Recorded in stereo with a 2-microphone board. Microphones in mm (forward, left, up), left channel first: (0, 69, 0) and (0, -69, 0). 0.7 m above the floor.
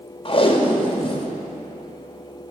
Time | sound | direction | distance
0.2 | tape being pulled | 40° left (ahead or behind) | 0.7 m